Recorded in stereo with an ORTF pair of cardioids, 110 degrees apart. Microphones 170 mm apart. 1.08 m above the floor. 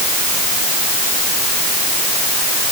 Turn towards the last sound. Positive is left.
No sound to turn to.